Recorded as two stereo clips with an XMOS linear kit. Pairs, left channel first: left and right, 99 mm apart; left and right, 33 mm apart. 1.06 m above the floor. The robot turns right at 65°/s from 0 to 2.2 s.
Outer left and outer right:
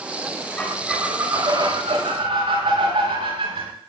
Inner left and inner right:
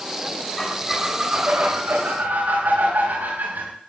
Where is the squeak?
165° left, 5 m; by 3.7 s 90° right, 5 m.